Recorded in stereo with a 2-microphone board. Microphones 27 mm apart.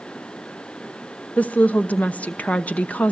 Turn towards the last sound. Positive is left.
turn(degrees=80)